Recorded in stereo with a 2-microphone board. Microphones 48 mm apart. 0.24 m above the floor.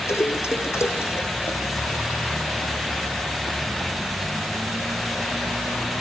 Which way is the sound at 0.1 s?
75° left (ahead or behind).